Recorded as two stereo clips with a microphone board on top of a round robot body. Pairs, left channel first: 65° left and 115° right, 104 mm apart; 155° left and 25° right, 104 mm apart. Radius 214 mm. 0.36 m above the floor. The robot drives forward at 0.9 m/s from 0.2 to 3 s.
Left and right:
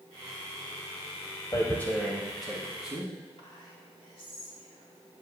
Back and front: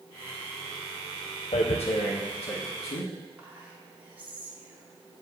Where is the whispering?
50° left, 3 m.